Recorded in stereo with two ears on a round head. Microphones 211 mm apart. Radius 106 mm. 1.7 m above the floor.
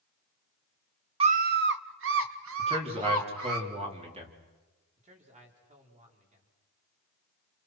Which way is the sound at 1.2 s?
25° right (ahead or behind).